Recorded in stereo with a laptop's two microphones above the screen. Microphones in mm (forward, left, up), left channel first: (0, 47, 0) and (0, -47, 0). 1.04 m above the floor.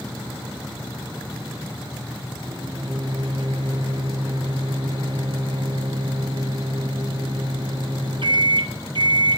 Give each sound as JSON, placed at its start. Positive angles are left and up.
{"t": 2.4, "sound": "a microwave", "side_deg": -55, "distance_m": 0.6}